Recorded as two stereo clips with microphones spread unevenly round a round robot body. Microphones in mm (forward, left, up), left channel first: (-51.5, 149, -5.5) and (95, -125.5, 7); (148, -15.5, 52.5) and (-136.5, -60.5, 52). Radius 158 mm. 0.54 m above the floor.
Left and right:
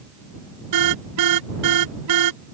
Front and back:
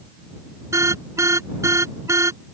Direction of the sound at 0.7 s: 90° right.